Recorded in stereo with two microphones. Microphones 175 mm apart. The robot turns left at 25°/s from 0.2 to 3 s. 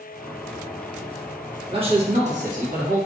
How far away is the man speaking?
About 0.9 m.